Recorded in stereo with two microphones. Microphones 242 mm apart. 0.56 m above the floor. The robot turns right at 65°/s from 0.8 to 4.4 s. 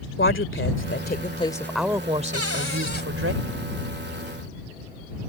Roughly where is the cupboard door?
Left.